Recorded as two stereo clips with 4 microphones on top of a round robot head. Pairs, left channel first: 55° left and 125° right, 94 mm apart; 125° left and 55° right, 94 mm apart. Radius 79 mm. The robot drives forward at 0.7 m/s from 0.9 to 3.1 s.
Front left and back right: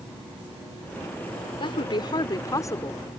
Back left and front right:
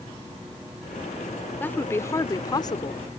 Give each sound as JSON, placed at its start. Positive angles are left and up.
{"t": 1.6, "sound": "a woman speaking", "azimuth_deg": 60}